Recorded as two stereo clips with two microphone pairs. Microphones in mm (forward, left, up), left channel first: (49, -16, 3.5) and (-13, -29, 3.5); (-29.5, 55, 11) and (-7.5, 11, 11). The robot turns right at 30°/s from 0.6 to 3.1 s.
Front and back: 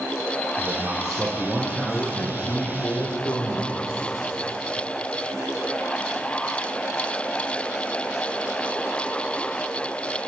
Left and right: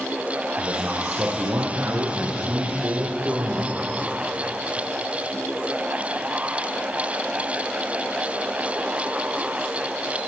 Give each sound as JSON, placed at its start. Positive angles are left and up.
{"t": 0.6, "sound": "a man speaking", "azimuth_deg": -95, "distance_m": 6.0}